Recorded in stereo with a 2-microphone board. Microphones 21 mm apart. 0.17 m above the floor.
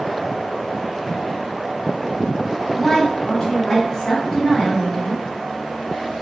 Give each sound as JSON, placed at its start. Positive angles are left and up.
{"t": 2.7, "sound": "a woman speaking", "side_deg": 30, "distance_m": 1.2}